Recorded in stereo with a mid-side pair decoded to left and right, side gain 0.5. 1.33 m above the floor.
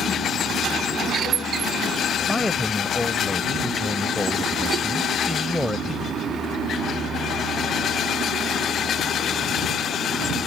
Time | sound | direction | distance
2.3 | a man speaking | 10° left | ?